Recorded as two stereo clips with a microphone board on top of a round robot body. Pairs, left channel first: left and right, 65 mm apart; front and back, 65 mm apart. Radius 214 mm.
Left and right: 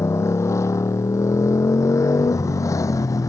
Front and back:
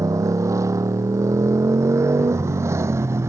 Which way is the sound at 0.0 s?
140° left.